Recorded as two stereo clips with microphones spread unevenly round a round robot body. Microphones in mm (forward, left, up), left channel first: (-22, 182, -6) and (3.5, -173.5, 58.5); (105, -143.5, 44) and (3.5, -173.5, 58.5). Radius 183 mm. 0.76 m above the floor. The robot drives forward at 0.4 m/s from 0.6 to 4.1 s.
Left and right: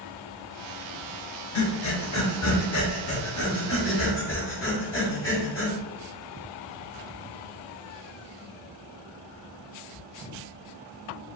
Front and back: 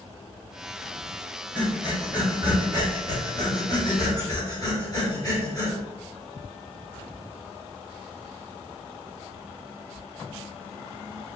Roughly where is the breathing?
Left.